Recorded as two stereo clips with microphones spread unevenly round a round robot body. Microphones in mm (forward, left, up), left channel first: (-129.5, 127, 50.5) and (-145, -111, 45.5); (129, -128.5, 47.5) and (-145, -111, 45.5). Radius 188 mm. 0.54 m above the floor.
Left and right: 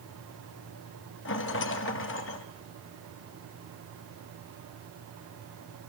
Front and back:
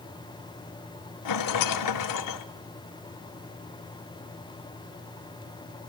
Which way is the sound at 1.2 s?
30° left.